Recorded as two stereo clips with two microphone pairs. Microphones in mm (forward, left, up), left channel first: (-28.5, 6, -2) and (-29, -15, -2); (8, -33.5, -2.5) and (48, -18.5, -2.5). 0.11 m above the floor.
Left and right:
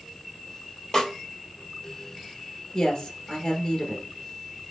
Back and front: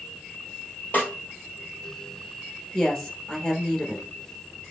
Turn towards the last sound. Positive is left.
turn(degrees=130)